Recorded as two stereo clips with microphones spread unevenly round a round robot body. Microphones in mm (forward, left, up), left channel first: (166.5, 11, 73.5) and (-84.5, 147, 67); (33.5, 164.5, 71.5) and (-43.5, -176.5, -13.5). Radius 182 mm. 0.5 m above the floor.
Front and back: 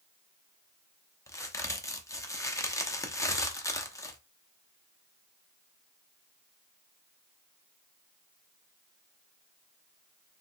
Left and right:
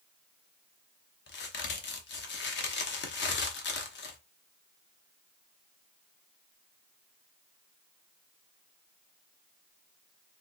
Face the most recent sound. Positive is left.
turn(degrees=35)